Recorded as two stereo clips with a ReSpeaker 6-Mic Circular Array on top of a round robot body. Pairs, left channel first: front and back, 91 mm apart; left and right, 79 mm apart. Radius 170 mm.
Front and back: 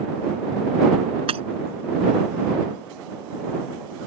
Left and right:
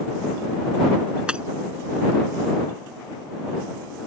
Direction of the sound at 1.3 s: 165° right.